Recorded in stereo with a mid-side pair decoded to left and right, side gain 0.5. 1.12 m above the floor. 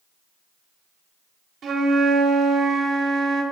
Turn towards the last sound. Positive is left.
turn(degrees=-50)